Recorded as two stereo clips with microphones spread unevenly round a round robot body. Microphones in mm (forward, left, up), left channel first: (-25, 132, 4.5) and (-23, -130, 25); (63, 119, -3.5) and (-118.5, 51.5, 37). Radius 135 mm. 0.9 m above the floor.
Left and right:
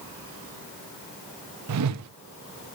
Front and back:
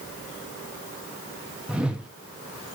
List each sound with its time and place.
1.7 s a whoosh: 70° right, 1.0 m